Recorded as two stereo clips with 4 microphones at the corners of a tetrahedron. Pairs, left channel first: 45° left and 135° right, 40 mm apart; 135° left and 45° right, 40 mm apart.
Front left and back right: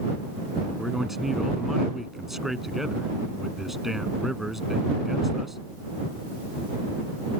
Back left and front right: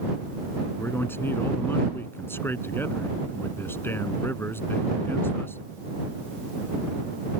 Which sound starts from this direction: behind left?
A man speaking, at 0.8 s.